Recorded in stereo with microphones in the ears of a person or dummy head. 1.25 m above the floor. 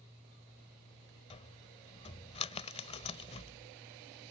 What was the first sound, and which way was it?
A cupboard door, 30° left (ahead or behind).